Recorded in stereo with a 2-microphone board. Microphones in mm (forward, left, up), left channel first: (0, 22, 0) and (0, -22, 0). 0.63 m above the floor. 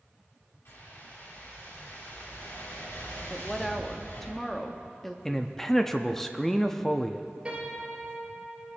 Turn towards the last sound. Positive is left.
turn(degrees=-25)  # may be behind; listen again after turning